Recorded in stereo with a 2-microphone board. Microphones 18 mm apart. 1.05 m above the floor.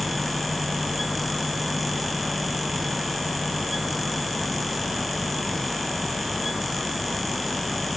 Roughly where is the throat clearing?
I don't hear throat clearing.